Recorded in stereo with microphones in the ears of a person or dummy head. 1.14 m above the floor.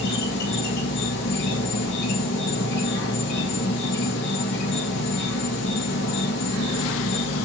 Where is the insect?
65° left (ahead or behind), 0.9 m.